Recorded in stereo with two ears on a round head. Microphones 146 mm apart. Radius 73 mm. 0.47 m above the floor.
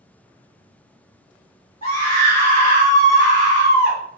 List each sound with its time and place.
1.8 s a scream: 40° left (ahead or behind), 1.8 m